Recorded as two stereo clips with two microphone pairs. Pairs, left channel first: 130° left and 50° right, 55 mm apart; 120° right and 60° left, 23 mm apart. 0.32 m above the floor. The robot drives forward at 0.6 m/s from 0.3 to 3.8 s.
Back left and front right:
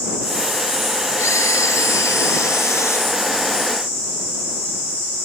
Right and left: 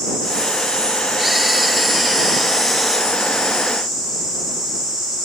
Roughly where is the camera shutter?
Behind left.